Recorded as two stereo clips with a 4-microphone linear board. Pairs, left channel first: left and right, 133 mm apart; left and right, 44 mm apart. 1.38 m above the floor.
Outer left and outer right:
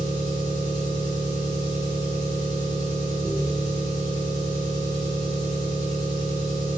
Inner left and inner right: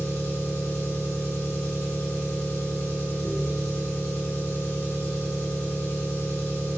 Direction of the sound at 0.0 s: 80° left.